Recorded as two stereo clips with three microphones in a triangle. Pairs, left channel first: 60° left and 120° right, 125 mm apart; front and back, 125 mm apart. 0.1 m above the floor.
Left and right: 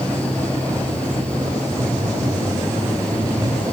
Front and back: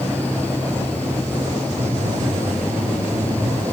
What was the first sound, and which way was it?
Breathing, 170° left.